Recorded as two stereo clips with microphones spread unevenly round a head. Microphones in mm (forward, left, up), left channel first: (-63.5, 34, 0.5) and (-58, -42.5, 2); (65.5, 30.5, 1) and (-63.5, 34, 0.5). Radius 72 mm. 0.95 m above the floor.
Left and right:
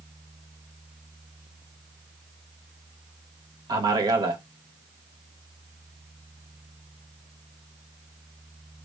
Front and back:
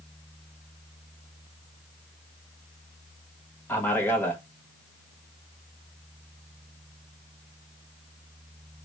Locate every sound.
3.7 s a man speaking: 80° right, 0.7 m